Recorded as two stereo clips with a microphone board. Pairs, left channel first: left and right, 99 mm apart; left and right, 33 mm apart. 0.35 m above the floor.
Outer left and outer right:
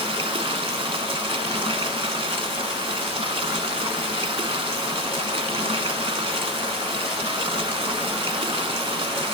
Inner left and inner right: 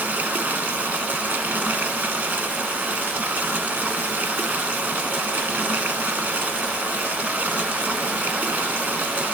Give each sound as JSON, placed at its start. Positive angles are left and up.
{"t": 0.0, "sound": "running water", "side_deg": -70, "distance_m": 0.9}